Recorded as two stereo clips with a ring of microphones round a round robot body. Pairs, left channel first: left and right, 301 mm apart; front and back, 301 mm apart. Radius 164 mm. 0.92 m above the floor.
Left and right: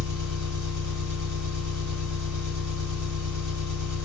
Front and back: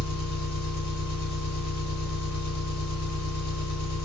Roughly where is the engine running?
Ahead right.